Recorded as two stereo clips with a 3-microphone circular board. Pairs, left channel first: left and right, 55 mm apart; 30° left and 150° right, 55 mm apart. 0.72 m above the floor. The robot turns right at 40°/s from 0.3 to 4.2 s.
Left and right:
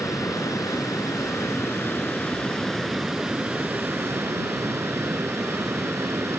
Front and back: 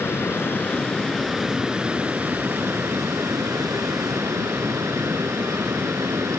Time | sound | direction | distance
0.0 | running water | 75° left | ?